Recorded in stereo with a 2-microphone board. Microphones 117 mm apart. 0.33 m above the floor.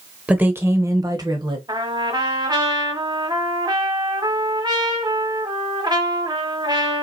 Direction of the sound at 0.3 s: 10° right (ahead or behind).